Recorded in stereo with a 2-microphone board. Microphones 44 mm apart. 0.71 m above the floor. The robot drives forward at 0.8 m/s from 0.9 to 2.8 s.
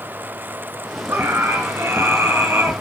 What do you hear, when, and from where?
1.1 s a scream: 80° right, 8.5 m; by 2.7 s 85° right, 8.5 m